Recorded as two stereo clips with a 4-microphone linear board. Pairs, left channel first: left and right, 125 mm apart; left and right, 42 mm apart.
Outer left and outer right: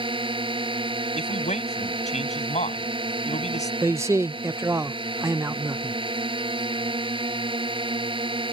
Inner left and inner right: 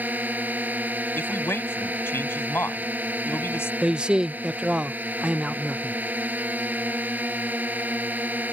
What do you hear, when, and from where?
0.0 s a drone: 40° right (ahead or behind)
1.1 s a man speaking: 65° left (ahead or behind)
3.8 s a man speaking: 25° right (ahead or behind)